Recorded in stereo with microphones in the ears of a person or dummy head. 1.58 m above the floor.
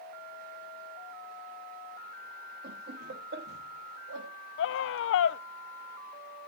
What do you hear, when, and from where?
2.6 s laughter: 50° right (ahead or behind), 3 m; by 4.3 s 60° right (ahead or behind), 3.5 m
4.6 s a scream: 65° left (ahead or behind), 0.8 m